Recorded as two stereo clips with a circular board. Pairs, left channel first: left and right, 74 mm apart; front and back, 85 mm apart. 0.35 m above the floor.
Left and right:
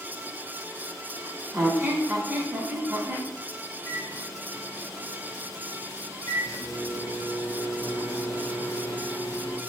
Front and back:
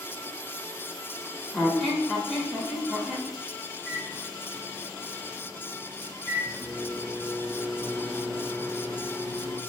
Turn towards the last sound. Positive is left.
turn(degrees=110)